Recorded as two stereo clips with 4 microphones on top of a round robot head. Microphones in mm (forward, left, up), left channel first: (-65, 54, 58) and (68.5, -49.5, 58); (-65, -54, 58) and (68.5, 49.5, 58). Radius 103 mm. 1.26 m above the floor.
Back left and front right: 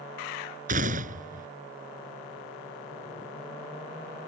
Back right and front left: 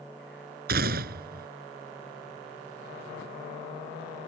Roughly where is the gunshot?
Ahead.